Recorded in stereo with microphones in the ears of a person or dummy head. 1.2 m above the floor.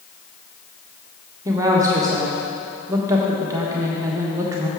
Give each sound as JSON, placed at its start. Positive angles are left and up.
{"t": 1.4, "sound": "a woman speaking", "side_deg": -20, "distance_m": 1.2}